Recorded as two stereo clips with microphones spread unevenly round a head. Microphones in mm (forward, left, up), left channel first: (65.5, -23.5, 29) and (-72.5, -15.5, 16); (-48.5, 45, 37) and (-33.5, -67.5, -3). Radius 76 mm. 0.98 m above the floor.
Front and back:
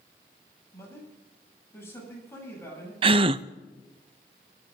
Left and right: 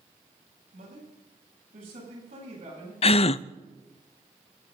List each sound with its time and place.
0.7 s a man speaking: 75° right, 9.5 m
3.0 s a gasp: 135° left, 0.5 m